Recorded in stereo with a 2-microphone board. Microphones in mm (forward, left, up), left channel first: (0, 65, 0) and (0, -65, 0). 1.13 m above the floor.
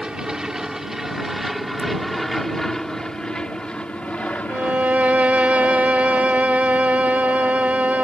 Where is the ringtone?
50° right (ahead or behind).